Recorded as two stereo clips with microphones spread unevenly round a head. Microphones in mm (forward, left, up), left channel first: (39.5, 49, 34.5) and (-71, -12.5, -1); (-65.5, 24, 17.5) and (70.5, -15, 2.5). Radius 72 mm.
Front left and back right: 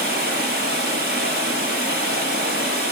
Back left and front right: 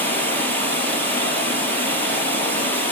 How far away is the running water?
About 5 m.